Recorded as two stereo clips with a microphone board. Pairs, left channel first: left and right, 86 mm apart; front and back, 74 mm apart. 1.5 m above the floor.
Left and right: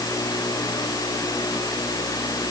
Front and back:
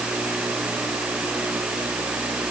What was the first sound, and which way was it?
Only background noise.